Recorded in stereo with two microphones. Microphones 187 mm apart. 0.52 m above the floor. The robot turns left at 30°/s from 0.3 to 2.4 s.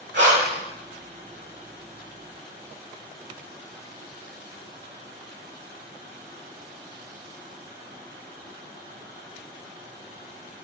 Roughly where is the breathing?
Right.